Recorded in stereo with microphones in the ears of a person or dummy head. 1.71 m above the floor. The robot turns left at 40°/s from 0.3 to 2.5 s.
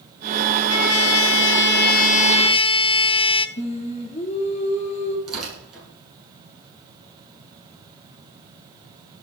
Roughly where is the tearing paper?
Centre.